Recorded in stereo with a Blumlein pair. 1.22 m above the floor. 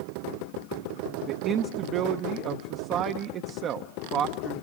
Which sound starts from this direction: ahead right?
A man speaking, at 1.3 s.